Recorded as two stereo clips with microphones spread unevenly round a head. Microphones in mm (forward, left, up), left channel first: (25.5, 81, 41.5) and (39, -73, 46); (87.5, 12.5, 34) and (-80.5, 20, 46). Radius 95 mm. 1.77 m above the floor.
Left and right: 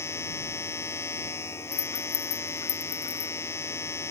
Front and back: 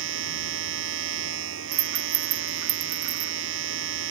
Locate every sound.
0.0 s a machine running: 170° left
1.7 s a rattle: 160° left